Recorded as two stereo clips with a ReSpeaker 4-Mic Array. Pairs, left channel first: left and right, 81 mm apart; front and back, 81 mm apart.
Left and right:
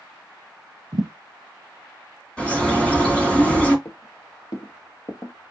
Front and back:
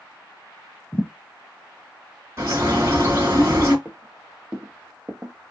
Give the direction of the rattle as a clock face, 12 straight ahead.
I don't hear a rattle.